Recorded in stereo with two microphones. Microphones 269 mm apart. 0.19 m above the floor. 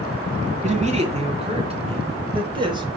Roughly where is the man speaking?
Right.